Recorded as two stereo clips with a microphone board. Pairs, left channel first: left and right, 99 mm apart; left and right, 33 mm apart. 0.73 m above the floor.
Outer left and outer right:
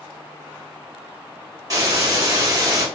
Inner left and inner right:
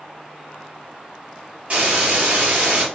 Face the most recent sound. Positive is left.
turn(degrees=-40)  # may be behind; listen again after turning